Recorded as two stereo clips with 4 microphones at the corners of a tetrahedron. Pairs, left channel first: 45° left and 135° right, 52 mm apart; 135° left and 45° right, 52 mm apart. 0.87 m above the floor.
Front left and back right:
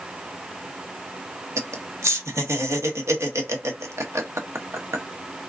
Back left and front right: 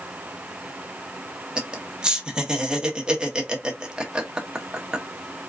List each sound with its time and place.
1.6 s laughter: 120° right, 1.1 m